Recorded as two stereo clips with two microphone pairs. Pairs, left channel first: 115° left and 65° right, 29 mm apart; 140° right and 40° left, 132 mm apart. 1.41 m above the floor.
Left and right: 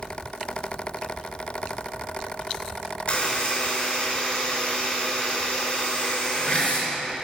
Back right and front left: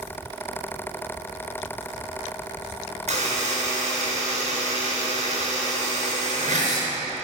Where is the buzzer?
65° left, 5 m.